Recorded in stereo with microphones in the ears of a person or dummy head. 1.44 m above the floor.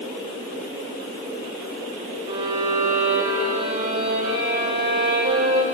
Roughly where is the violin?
Right.